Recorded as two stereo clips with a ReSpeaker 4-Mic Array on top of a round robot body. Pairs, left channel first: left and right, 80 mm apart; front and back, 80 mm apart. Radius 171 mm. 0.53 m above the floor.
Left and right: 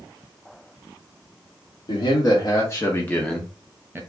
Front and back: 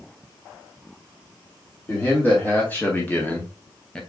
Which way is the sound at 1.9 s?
65° left.